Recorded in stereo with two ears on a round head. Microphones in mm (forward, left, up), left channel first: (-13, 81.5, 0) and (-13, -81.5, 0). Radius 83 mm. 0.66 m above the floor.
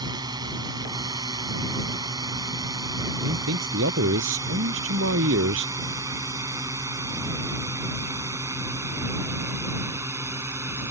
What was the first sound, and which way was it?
A drone, 25° right (ahead or behind).